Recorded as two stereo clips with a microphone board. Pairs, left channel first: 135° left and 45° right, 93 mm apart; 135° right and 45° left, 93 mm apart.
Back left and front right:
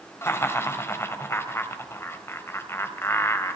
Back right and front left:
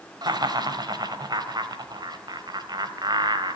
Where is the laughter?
75° left, 2.5 m.